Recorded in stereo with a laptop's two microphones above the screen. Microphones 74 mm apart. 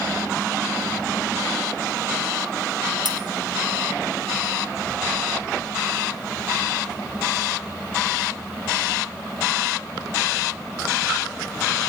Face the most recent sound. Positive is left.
turn(degrees=-75)  # may be behind; listen again after turning